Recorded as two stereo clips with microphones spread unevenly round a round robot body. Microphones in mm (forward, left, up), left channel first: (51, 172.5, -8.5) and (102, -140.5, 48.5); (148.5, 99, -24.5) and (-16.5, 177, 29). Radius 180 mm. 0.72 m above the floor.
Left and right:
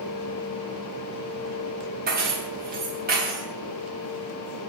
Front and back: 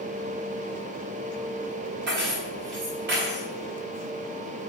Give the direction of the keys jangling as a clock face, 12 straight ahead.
5 o'clock.